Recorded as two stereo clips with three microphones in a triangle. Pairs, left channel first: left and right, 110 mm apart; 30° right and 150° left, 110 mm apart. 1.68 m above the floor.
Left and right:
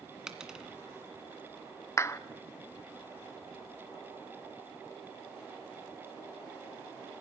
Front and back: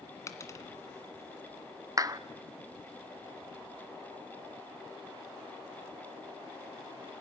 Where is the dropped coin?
10° right, 1.8 m.